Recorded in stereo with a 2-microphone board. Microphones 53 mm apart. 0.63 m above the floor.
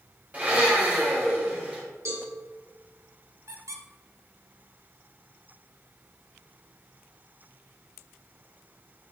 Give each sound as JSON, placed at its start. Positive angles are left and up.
{"t": 0.3, "sound": "a blender", "side_deg": -30, "distance_m": 2.5}
{"t": 2.0, "sound": "a cowbell", "side_deg": -75, "distance_m": 3.5}
{"t": 3.5, "sound": "a squeak", "side_deg": -75, "distance_m": 1.0}